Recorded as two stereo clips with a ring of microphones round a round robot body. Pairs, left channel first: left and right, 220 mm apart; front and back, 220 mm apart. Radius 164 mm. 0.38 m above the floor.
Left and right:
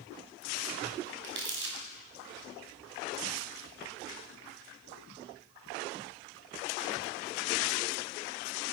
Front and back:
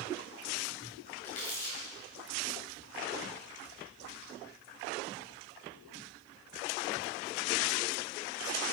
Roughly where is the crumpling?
Ahead right.